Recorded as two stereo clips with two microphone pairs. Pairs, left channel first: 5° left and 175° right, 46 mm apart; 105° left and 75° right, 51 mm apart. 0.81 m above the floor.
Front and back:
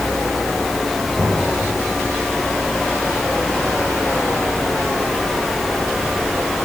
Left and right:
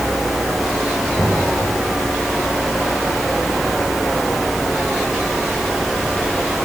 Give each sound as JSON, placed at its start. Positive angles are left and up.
{"t": 1.2, "sound": "knocking", "azimuth_deg": 35, "distance_m": 8.5}